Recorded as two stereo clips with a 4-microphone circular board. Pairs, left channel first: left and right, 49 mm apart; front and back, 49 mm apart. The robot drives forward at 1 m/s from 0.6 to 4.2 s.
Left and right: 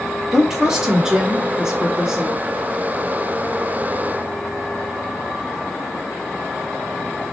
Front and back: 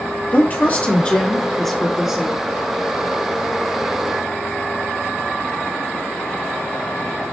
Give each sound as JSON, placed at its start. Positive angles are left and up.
{"t": 0.3, "sound": "a woman speaking", "azimuth_deg": -15, "distance_m": 2.0}